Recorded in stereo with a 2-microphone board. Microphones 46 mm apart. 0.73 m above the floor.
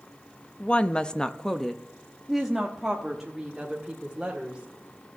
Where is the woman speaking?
25° left (ahead or behind), 0.6 m; by 5.1 s 10° right (ahead or behind), 2.5 m.